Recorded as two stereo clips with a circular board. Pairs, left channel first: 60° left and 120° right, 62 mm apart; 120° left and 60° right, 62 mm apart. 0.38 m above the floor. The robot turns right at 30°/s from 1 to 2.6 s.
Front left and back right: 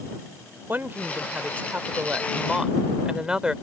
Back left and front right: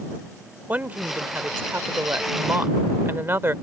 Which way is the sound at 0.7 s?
100° right.